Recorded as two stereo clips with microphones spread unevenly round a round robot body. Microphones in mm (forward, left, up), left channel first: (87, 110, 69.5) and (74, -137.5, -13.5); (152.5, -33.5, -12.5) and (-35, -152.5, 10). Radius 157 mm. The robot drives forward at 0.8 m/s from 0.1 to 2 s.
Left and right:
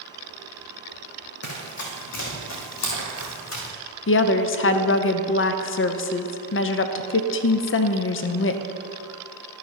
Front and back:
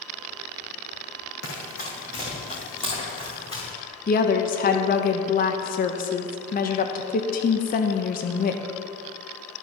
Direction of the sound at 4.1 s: 40° left.